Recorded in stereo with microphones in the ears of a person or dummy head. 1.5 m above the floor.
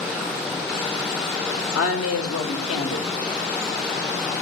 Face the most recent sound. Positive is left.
turn(degrees=85)